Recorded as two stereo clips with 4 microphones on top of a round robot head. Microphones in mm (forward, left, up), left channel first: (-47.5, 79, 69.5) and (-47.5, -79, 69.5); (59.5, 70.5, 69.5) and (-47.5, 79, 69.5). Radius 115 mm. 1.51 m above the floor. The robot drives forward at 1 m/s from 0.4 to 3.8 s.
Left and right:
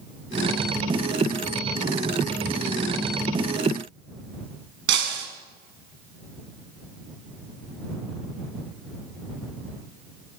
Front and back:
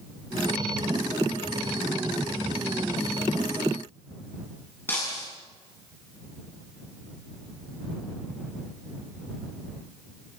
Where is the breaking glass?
85° right, 5 m.